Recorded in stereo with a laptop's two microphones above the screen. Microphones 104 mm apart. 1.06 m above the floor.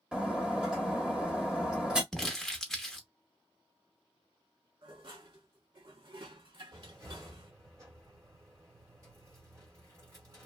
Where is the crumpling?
5° left (ahead or behind), 0.8 m.